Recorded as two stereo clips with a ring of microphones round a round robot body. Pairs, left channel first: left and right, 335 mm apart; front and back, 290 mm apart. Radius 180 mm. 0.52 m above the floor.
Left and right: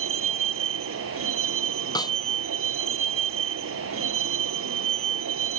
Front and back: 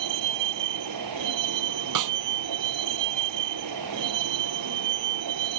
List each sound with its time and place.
0.0 s a vehicle: 145° right
1.9 s a snare drum: 170° left